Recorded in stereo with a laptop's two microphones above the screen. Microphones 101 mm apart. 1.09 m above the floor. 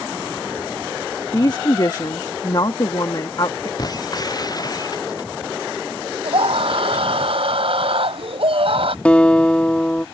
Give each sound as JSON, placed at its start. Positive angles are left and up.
{"t": 1.3, "sound": "a woman speaking", "side_deg": 45}
{"t": 3.8, "sound": "breaking glass", "side_deg": 40}
{"t": 6.2, "sound": "a scream", "side_deg": -65}
{"t": 9.1, "sound": "a guitar", "side_deg": 15}